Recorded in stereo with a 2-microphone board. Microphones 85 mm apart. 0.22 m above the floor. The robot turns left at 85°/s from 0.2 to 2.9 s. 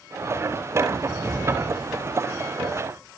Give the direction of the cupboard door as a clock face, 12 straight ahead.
5 o'clock.